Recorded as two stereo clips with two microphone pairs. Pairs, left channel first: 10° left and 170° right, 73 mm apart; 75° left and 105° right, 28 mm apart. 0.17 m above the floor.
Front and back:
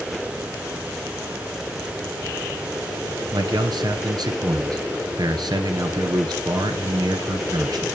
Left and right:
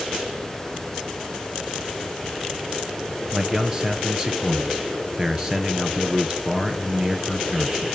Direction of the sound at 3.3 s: 175° right.